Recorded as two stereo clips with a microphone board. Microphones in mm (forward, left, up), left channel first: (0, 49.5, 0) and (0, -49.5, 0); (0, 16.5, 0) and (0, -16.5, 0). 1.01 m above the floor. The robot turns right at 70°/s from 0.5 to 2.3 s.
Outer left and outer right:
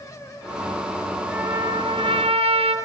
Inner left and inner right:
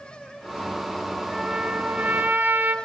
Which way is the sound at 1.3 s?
160° right.